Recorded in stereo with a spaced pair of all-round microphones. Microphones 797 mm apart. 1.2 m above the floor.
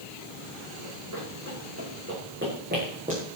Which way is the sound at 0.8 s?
25° right (ahead or behind).